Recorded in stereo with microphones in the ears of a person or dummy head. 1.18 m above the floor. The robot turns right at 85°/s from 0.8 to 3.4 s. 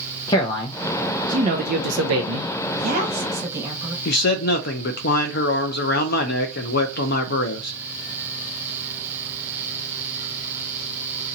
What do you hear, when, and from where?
0.3 s a man speaking: 165° left, 0.5 m; by 2.5 s 50° right, 0.5 m
2.7 s a woman speaking: 65° right, 1.3 m; by 4.0 s 5° right, 1.3 m
4.0 s a man speaking: 50° left (ahead or behind), 0.7 m